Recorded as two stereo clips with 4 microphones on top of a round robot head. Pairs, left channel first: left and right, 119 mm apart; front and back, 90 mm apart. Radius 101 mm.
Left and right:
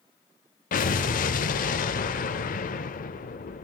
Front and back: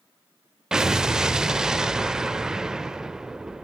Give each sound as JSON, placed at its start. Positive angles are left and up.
{"t": 0.7, "sound": "an explosion", "azimuth_deg": 100, "distance_m": 0.5}